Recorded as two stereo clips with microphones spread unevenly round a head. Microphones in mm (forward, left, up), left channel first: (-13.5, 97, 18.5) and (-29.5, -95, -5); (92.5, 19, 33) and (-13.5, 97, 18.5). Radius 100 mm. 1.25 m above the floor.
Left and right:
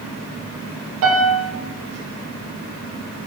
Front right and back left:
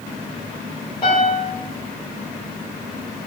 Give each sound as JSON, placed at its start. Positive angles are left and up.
{"t": 1.0, "sound": "a piano", "azimuth_deg": -105, "distance_m": 4.0}